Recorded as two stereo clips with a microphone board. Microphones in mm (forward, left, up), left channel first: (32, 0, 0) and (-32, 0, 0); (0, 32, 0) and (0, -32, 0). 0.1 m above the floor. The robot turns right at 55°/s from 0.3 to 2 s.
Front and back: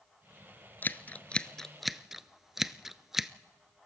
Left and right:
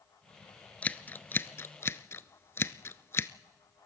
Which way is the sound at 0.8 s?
35° left.